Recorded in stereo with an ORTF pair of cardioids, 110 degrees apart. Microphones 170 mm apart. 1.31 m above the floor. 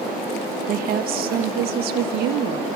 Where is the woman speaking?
55° right, 1.1 m; by 2.7 s 75° right, 2 m.